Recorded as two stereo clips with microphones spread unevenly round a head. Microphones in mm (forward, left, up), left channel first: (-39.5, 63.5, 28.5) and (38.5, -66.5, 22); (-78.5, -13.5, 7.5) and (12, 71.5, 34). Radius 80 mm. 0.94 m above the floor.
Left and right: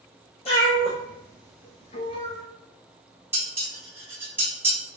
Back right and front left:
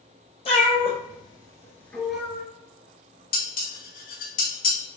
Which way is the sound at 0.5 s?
170° left.